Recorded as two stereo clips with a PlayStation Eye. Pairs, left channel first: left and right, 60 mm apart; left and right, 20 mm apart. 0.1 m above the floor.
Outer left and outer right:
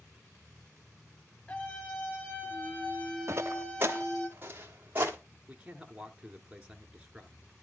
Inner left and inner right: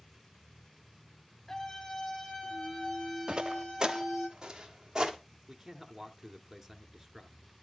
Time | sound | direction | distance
1.5 | a scream | 30° left (ahead or behind) | 2 m
3.3 | footsteps | 45° right (ahead or behind) | 0.7 m
5.5 | a man speaking | 15° right (ahead or behind) | 1.3 m